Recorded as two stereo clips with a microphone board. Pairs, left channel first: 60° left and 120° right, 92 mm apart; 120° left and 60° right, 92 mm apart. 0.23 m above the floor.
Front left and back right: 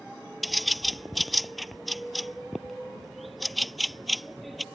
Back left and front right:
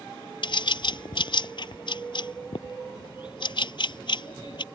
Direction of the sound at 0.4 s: 150° left.